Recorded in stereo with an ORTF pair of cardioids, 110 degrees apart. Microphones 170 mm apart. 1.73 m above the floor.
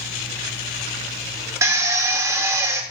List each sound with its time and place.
1.6 s a drill: 20° right, 1.5 m